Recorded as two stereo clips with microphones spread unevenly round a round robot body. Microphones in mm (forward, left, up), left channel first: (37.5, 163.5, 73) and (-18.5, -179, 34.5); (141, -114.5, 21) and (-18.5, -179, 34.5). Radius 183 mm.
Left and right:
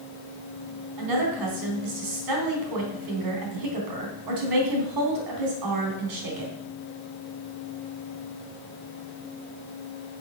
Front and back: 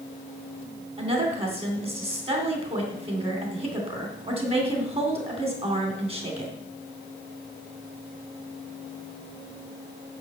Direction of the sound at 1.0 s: 105° right.